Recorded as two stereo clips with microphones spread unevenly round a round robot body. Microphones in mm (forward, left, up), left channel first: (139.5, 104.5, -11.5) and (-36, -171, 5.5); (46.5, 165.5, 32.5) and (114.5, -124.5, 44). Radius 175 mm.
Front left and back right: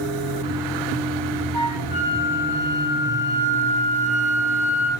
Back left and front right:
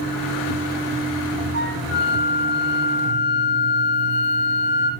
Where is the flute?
95° left, 7.5 m.